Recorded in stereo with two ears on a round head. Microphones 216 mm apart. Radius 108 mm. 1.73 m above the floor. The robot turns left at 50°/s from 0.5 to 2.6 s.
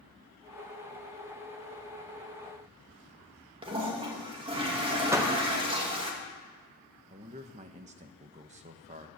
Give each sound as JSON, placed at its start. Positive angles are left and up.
{"t": 3.6, "sound": "a toilet flushing", "side_deg": -20, "distance_m": 2.5}
{"t": 5.1, "sound": "a door slam", "side_deg": -10, "distance_m": 1.2}
{"t": 7.1, "sound": "a man speaking", "side_deg": -30, "distance_m": 1.3}